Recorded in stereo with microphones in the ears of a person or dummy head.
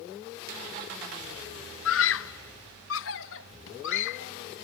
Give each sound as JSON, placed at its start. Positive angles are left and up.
{"t": 1.9, "sound": "a scream", "side_deg": 70}